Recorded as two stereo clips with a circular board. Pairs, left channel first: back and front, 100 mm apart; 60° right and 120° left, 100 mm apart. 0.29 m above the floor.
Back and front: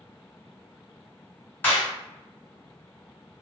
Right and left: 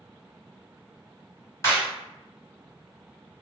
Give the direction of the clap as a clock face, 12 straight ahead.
4 o'clock.